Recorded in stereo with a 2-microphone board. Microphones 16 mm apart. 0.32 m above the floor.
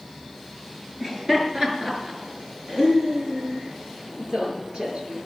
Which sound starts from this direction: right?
Laughter, at 1.0 s.